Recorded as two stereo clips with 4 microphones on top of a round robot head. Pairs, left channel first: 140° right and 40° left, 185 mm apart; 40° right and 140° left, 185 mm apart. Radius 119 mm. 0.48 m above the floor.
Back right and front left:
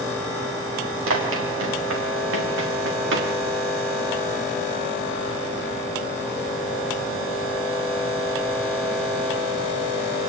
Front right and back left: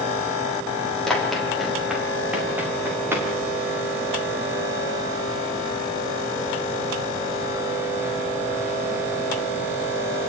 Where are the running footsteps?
50° left, 8 m; by 3.3 s 65° left, 7 m.